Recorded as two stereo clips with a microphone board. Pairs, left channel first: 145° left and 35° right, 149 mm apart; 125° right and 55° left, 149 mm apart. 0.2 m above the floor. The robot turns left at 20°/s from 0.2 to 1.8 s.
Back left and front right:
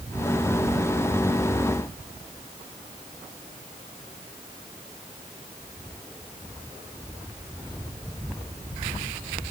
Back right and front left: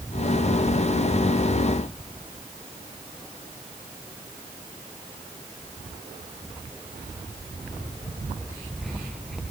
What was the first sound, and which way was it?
Only background noise.